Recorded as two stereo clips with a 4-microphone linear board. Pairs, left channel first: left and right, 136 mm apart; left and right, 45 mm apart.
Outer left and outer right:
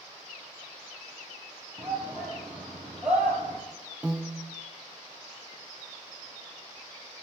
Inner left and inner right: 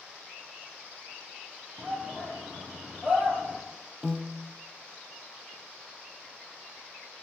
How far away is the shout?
About 3.5 m.